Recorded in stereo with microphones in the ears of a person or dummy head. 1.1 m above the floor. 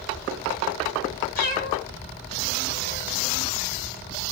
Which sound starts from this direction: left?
A cat meowing, at 1.4 s.